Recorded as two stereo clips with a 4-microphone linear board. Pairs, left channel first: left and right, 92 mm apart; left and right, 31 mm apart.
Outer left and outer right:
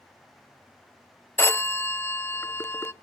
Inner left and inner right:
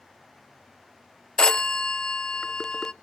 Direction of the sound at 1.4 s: 25° left (ahead or behind).